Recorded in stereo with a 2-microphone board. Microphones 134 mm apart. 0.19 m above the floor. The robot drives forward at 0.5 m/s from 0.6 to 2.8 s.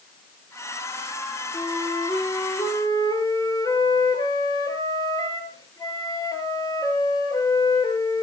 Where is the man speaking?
No man speaking in this recording.